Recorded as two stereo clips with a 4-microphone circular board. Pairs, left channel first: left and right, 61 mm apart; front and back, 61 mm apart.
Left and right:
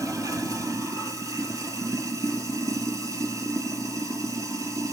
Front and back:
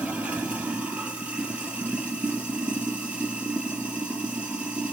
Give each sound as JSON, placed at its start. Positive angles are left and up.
{"t": 0.0, "sound": "running water", "azimuth_deg": -110, "distance_m": 1.4}